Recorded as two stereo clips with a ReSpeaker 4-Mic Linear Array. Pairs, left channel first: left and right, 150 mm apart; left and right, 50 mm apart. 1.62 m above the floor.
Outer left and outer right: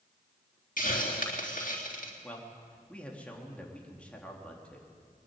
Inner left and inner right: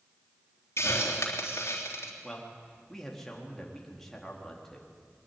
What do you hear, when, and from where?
0.8 s a hiss: 65° left (ahead or behind), 3.5 m
2.2 s a man speaking: 10° left (ahead or behind), 3.5 m